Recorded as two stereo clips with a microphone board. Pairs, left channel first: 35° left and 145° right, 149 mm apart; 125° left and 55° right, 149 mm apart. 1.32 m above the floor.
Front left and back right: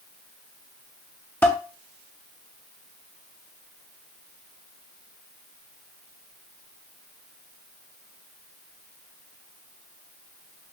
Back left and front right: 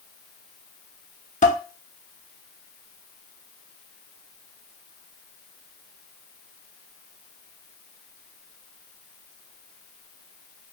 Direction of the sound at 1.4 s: 110° left.